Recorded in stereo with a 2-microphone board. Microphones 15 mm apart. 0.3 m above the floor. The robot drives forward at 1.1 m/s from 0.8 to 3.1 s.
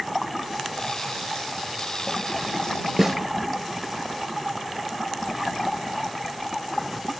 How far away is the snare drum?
About 2 m.